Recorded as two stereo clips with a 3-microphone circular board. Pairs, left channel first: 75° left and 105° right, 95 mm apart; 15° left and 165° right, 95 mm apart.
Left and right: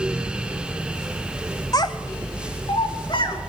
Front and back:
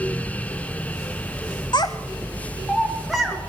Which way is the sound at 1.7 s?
35° left.